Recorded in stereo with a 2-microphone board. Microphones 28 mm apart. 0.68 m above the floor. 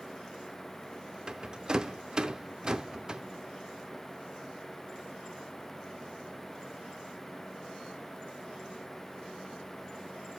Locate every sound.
1.3 s a rattle: 25° right (ahead or behind), 0.6 m